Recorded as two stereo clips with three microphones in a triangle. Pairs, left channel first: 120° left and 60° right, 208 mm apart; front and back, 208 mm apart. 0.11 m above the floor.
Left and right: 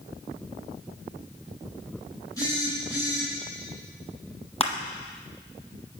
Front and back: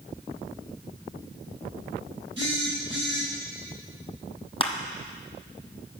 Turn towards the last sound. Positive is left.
turn(degrees=60)